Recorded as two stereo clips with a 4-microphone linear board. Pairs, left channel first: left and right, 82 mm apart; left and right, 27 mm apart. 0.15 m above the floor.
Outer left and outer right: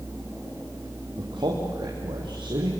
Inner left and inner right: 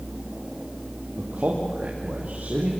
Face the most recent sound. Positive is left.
turn(degrees=-80)